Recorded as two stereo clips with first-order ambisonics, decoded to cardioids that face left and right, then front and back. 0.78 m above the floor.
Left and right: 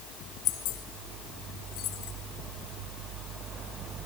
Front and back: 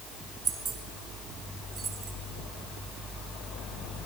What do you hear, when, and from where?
0.5 s keys jangling: 120° left, 1.4 m